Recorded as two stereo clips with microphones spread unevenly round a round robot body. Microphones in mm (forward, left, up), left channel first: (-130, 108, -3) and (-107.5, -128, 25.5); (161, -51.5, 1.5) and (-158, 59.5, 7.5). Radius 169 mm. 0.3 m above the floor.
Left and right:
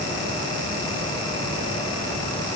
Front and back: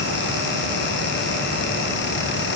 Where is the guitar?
I don't hear a guitar.